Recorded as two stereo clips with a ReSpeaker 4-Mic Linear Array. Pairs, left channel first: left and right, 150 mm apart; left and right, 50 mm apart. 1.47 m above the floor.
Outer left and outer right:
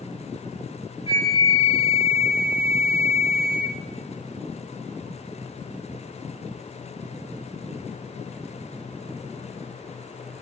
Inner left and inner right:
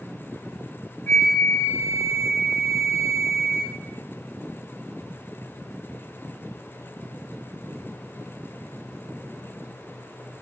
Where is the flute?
40° left (ahead or behind), 0.9 m.